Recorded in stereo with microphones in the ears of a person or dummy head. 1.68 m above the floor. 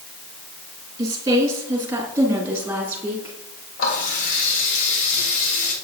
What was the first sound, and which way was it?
A woman speaking, 20° right (ahead or behind).